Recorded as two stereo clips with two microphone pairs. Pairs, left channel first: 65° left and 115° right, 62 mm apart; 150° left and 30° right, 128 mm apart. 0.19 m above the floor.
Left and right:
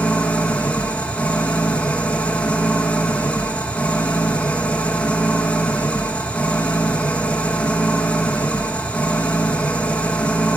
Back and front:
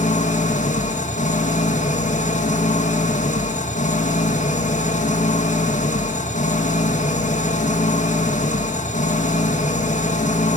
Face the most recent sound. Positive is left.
turn(degrees=140)